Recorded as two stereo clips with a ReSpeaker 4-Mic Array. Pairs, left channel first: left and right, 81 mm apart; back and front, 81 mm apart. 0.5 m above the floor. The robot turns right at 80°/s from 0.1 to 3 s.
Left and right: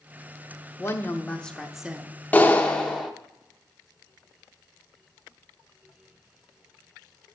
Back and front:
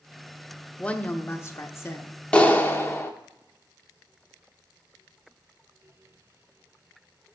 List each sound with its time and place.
0.8 s a woman speaking: 110° left, 0.9 m; by 2.1 s 150° right, 0.9 m
2.3 s a clap: 120° left, 0.9 m; by 3.1 s 175° left, 0.9 m